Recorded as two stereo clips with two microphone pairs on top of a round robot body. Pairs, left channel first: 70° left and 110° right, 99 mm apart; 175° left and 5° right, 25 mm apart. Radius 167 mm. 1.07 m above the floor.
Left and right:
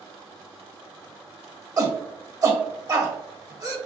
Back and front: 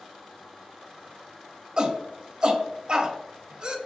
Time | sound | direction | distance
1.8 | a shout | 60° right | 0.8 m